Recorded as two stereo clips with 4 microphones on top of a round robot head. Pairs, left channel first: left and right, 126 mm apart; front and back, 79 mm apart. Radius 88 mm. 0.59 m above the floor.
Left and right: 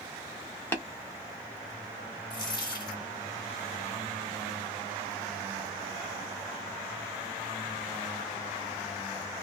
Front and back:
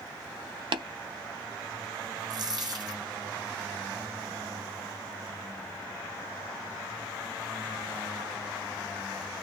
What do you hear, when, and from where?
0.7 s tapping: 165° left, 0.6 m
2.3 s a dropped coin: 150° left, 1.2 m